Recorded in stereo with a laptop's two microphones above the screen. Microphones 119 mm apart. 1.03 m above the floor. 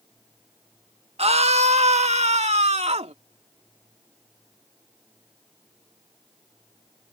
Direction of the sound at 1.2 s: 60° right (ahead or behind).